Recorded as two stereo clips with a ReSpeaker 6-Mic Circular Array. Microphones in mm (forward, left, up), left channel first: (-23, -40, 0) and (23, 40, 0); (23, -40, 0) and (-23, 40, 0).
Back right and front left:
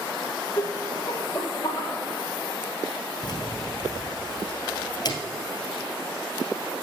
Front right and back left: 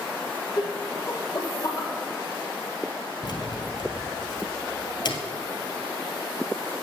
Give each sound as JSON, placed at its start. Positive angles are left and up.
{"t": 0.6, "sound": "laughter", "azimuth_deg": -85, "distance_m": 1.4}
{"t": 3.2, "sound": "keys jangling", "azimuth_deg": -85, "distance_m": 2.0}